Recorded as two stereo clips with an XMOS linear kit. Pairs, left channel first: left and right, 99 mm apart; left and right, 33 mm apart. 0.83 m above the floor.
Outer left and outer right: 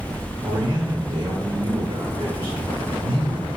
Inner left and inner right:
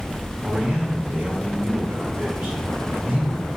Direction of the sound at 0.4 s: 75° right (ahead or behind).